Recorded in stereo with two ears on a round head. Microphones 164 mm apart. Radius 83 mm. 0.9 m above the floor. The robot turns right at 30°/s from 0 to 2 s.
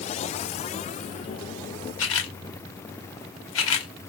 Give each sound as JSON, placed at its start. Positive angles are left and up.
{"t": 2.0, "sound": "a camera shutter", "side_deg": 80, "distance_m": 0.9}